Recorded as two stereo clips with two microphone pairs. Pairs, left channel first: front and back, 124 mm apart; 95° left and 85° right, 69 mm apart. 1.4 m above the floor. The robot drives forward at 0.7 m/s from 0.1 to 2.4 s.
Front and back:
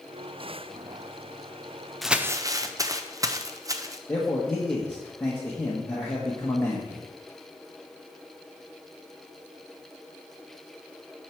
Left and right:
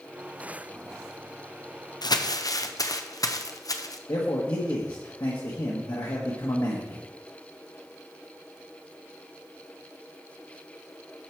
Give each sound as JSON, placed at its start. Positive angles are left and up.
{"t": 2.0, "sound": "crumpling", "azimuth_deg": 90, "distance_m": 0.5}
{"t": 4.1, "sound": "a man speaking", "azimuth_deg": 75, "distance_m": 1.4}